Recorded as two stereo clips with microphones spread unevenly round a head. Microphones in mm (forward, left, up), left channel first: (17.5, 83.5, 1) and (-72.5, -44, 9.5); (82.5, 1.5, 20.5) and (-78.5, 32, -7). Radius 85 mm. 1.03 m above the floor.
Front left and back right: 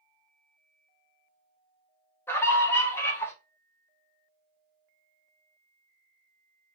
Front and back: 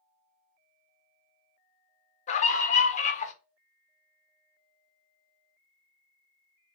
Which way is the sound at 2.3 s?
Straight ahead.